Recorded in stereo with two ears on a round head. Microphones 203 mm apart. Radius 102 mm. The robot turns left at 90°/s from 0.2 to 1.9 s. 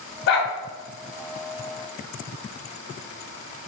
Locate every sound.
0.3 s a dog barking: 50° left (ahead or behind), 1.0 m; by 0.5 s 35° left (ahead or behind), 1.0 m